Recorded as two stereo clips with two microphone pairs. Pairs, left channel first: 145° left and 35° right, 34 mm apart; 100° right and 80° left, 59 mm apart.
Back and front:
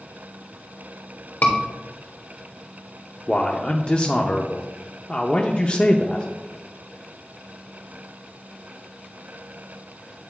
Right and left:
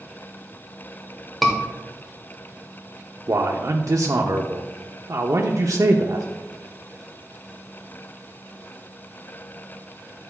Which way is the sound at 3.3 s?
90° left.